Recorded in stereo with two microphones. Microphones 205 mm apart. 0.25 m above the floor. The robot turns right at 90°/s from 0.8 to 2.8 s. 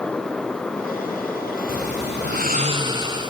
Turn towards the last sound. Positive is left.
turn(degrees=-25)